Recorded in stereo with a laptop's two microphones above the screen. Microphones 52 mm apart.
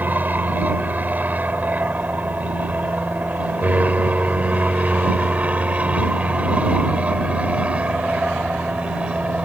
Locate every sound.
0.0 s an aircraft: 35° right (ahead or behind); by 9.4 s 20° right (ahead or behind)